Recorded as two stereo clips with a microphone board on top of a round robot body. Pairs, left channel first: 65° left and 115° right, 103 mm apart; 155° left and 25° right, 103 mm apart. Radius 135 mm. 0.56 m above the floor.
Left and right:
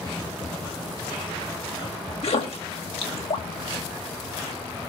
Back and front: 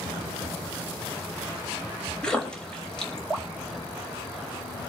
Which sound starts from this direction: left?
A splash, at 2.2 s.